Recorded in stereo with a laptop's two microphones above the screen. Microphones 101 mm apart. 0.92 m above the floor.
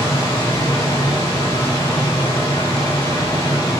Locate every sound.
0.0 s a machine running: 65° left (ahead or behind), 1.6 m